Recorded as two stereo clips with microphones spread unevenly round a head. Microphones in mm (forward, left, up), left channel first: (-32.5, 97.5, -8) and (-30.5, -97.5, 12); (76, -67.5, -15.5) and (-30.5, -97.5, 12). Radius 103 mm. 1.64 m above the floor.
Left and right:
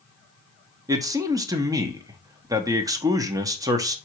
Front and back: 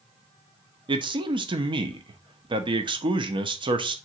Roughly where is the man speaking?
Behind right.